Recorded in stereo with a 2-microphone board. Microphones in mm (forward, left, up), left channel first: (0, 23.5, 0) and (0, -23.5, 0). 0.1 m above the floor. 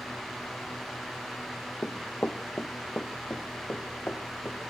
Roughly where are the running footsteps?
Left.